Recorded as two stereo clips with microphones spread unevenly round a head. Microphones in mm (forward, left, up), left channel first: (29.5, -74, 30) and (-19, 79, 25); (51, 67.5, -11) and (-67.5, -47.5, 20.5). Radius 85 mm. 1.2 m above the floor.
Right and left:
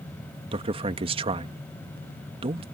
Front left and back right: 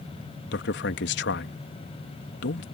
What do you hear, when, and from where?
0.5 s a man speaking: 50° left